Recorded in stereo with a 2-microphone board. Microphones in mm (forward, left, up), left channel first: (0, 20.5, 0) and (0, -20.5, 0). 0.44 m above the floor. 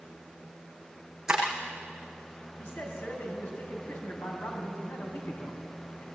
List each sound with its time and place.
1.3 s breaking glass: 20° right (ahead or behind), 8 m
2.6 s a man speaking: 60° left (ahead or behind), 4 m